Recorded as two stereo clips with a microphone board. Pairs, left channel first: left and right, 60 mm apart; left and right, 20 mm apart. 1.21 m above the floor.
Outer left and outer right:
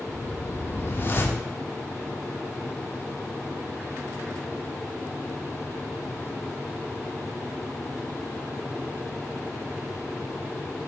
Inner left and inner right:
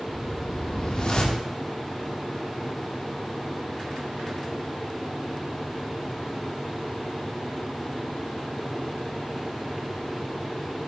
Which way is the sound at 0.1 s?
35° left (ahead or behind).